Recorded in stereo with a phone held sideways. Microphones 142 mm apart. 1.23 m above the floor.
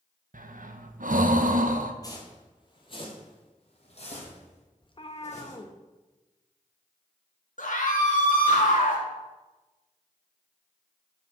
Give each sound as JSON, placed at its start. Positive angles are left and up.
{"t": 0.3, "sound": "breathing", "side_deg": -75, "distance_m": 0.6}
{"t": 2.0, "sound": "footsteps", "side_deg": 25, "distance_m": 1.7}
{"t": 4.8, "sound": "a cat meowing", "side_deg": 35, "distance_m": 0.7}
{"t": 7.6, "sound": "a scream", "side_deg": 70, "distance_m": 2.0}